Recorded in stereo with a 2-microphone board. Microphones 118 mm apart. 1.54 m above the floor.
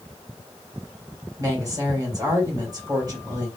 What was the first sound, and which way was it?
A woman speaking, 35° right (ahead or behind).